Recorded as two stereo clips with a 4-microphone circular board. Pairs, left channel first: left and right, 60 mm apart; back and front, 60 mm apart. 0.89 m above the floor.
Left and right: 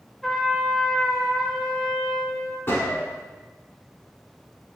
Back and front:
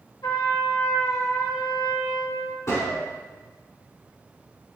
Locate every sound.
0.2 s a trumpet: 175° left, 3 m
2.7 s a gunshot: 140° left, 3 m